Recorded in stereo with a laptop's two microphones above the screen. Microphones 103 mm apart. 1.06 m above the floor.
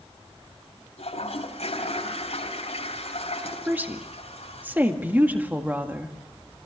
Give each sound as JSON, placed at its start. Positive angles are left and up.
{"t": 1.0, "sound": "a toilet flushing", "side_deg": 80, "distance_m": 4.0}
{"t": 3.7, "sound": "a woman speaking", "side_deg": -15, "distance_m": 1.8}